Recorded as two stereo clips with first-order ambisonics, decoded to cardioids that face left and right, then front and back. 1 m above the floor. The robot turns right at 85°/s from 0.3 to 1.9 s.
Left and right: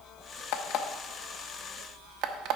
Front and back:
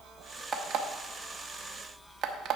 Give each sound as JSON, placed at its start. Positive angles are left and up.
{"t": 0.5, "sound": "an alarm clock", "azimuth_deg": 110, "distance_m": 0.9}